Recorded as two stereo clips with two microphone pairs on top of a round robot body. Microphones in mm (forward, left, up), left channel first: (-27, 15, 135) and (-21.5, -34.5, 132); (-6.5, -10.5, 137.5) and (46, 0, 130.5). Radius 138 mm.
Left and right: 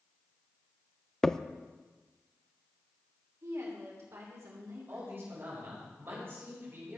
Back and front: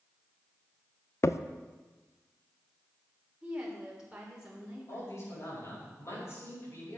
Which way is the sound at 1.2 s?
175° left.